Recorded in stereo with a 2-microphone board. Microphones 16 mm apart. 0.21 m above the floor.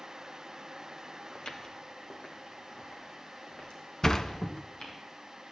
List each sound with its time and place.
1.4 s footsteps: 60° left (ahead or behind), 2.5 m; by 5.0 s 80° left, 7 m
4.0 s a sliding door: 30° left (ahead or behind), 0.7 m